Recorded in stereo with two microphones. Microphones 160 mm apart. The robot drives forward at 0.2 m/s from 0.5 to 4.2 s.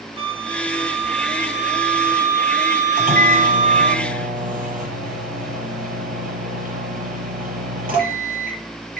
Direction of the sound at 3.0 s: 60° right (ahead or behind).